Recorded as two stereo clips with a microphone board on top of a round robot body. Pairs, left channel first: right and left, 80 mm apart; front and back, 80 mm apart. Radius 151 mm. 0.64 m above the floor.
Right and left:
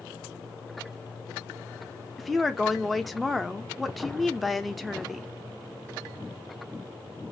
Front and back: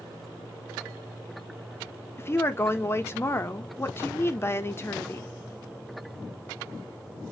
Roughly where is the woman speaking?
Ahead.